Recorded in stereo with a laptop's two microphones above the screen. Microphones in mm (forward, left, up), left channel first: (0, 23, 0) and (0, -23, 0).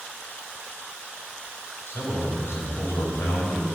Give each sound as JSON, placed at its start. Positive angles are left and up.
{"t": 1.9, "sound": "a man speaking", "side_deg": 60, "distance_m": 5.0}